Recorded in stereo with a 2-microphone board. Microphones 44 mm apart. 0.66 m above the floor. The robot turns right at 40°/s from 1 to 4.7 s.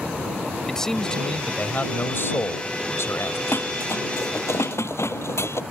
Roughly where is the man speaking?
Ahead.